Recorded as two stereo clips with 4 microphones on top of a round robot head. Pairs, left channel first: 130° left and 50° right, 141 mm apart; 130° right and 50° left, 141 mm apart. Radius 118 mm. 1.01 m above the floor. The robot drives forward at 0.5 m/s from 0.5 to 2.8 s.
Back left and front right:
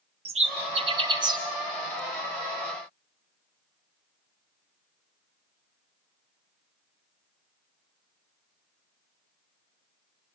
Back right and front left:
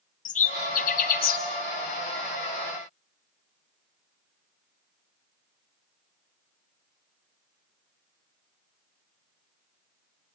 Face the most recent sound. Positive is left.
turn(degrees=-130)